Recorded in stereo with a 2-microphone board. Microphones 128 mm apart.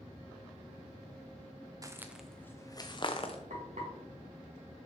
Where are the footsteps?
25° right (ahead or behind), 0.6 m; by 3.4 s 50° left (ahead or behind), 1.0 m.